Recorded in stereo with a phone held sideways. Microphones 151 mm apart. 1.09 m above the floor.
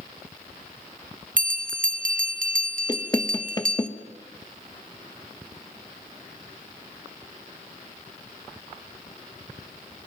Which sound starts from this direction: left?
Knocking, at 2.9 s.